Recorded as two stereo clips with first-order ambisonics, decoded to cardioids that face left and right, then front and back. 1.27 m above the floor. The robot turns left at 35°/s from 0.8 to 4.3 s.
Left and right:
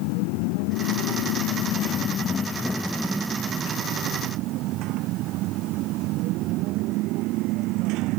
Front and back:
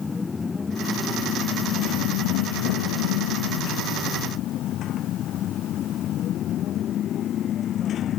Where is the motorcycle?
80° left; by 8.2 s 60° right.